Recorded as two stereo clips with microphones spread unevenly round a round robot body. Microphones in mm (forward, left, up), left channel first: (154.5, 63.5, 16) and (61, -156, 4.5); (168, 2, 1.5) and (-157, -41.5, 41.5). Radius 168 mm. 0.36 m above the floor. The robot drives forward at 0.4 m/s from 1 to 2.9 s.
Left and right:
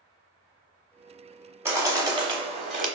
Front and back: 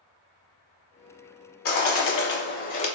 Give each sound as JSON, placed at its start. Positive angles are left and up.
{"t": 1.6, "sound": "a bird", "azimuth_deg": -35, "distance_m": 1.1}